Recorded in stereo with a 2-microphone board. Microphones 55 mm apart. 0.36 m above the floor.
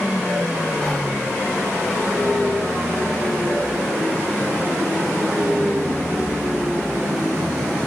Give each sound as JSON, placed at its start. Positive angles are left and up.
{"t": 0.8, "sound": "whispering", "side_deg": 25, "distance_m": 1.0}